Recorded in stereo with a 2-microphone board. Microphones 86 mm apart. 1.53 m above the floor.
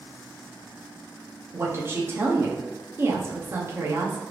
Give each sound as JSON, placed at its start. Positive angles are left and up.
{"t": 1.5, "sound": "a woman speaking", "side_deg": -30, "distance_m": 0.7}